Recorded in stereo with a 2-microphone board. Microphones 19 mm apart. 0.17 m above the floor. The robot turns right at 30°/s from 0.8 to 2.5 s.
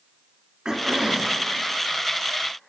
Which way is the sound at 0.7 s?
45° right (ahead or behind).